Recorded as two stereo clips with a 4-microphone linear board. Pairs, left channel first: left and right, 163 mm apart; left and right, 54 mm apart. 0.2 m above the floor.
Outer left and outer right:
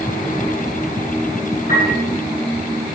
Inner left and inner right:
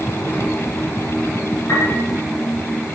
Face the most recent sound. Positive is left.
turn(degrees=60)  # may be behind; listen again after turning